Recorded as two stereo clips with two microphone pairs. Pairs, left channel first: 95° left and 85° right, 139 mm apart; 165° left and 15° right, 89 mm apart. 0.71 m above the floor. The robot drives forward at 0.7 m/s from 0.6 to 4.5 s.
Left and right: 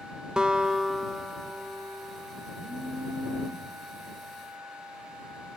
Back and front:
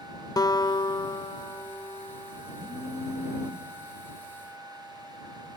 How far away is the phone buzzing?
About 4 m.